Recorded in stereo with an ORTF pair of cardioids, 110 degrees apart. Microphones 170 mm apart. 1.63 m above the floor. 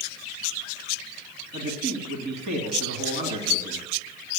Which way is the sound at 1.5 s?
65° right.